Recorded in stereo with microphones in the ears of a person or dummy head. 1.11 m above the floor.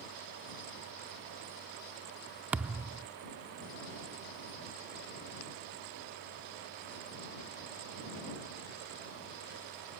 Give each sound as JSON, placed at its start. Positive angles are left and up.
{"t": 2.5, "sound": "a thud", "side_deg": -10}